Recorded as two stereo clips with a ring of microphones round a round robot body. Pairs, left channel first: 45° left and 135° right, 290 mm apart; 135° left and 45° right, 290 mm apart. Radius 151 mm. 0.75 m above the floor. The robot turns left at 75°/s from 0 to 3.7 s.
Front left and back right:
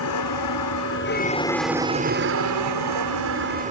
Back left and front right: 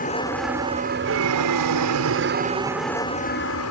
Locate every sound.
0.0 s an aircraft: 80° left; by 3.7 s 160° left